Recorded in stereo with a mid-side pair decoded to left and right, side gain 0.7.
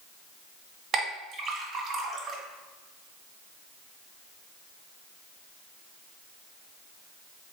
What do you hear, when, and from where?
0.9 s a clink: 35° right, 1.5 m